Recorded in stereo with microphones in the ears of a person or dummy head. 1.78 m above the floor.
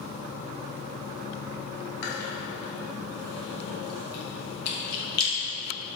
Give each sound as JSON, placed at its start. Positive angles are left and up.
{"t": 2.0, "sound": "chewing", "side_deg": 60, "distance_m": 2.0}